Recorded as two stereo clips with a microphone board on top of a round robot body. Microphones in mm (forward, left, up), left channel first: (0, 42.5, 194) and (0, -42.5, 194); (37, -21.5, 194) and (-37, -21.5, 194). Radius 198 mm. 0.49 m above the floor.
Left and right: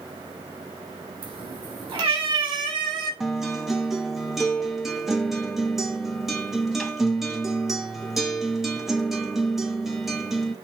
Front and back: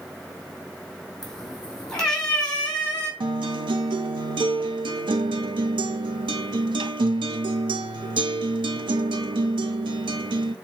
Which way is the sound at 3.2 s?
175° right.